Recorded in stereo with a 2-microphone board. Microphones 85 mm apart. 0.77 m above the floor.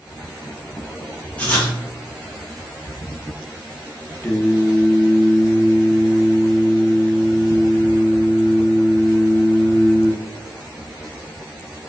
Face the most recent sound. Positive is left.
turn(degrees=15)  # may be behind; listen again after turning